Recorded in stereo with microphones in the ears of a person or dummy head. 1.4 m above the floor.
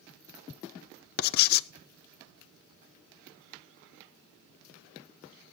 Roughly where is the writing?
Left.